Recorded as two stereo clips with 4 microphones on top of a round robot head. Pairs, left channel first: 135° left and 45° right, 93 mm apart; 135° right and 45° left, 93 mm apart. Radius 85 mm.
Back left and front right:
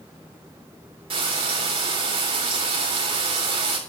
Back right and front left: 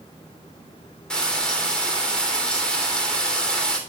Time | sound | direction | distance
1.1 | frying | 55° right | 3.5 m